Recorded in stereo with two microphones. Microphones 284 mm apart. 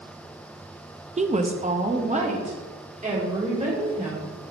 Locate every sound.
1.2 s a woman speaking: 25° right (ahead or behind), 0.6 m